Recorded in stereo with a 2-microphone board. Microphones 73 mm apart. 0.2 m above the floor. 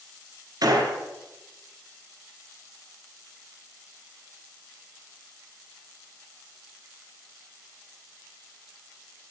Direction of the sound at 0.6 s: 60° right (ahead or behind).